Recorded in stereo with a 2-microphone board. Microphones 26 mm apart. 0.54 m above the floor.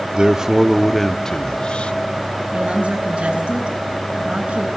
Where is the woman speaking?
65° right (ahead or behind), 5 m.